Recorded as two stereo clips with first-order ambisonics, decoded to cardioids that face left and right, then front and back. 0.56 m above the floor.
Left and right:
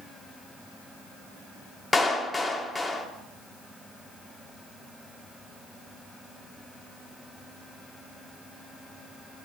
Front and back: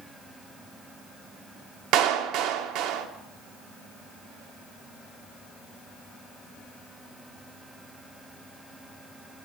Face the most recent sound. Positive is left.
turn(degrees=170)